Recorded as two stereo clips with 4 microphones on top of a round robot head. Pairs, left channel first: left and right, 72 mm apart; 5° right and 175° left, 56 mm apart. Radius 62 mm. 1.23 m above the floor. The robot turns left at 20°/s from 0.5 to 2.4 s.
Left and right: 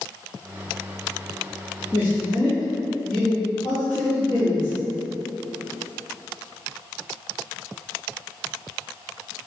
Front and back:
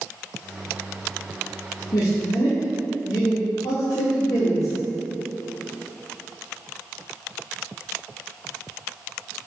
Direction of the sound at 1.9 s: 20° left.